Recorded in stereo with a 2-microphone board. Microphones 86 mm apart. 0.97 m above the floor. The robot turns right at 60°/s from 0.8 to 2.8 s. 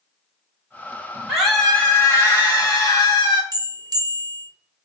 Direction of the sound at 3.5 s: 45° right (ahead or behind).